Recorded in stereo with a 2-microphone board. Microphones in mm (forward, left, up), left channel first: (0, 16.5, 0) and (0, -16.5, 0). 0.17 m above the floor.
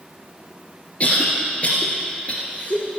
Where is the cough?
40° left (ahead or behind), 2.5 m.